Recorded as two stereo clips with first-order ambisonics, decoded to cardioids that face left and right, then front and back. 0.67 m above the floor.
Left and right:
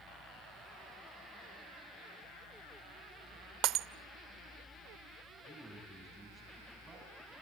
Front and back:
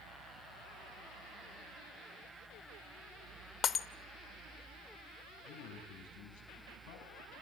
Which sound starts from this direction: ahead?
A man speaking, at 5.5 s.